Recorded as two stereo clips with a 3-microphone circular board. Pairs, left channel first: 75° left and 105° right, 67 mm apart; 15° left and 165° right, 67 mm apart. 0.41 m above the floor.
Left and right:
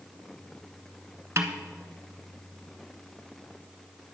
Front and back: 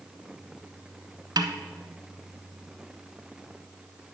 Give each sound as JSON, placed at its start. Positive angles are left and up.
{"t": 1.4, "sound": "a snare drum", "azimuth_deg": -155, "distance_m": 0.9}